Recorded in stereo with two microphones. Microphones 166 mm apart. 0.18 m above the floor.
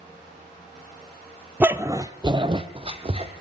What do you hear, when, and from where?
1.6 s a dog barking: 10° right (ahead or behind), 0.8 m; by 3.3 s 35° right (ahead or behind), 1.8 m